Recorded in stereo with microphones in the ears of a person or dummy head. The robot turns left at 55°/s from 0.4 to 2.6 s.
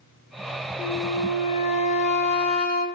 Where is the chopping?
I don't hear chopping.